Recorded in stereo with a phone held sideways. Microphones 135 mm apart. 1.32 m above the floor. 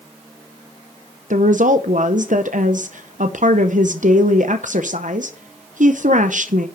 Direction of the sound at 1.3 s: 70° right (ahead or behind).